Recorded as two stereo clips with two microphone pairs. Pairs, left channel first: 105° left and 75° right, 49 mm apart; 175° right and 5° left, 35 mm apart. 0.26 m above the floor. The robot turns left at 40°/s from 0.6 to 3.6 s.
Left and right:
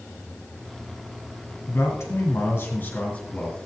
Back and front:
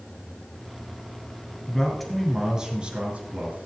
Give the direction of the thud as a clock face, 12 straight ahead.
I don't hear a thud.